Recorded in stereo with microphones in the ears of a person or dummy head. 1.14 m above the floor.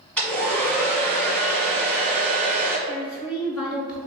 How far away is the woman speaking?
About 0.6 m.